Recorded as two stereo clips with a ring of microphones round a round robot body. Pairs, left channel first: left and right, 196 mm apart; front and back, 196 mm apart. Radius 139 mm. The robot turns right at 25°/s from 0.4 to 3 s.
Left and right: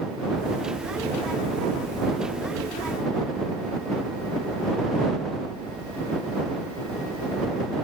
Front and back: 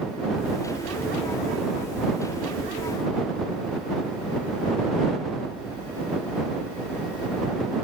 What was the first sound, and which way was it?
Only background noise.